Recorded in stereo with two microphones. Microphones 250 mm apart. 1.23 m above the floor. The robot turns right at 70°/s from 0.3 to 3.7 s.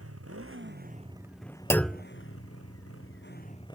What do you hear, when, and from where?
0.0 s a motorcycle: 75° right; by 3.8 s 160° left
1.7 s a clunk: 10° left (ahead or behind); by 2.0 s 10° right (ahead or behind)